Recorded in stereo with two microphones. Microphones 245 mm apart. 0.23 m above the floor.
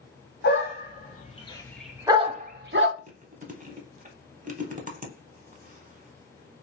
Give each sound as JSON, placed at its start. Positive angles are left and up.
{"t": 0.4, "sound": "a dog barking", "side_deg": 50, "distance_m": 1.0}
{"t": 3.0, "sound": "chewing", "side_deg": -35, "distance_m": 0.6}